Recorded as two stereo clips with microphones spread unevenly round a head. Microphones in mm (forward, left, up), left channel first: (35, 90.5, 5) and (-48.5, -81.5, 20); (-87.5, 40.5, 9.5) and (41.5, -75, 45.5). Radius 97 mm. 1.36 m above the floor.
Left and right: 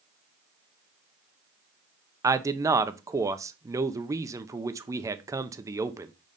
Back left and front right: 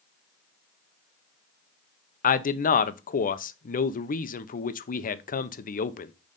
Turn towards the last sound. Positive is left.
turn(degrees=170)